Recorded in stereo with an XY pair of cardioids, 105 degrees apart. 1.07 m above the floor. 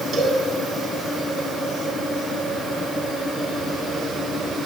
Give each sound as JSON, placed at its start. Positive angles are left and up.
{"t": 0.1, "sound": "a cowbell", "azimuth_deg": -60, "distance_m": 7.5}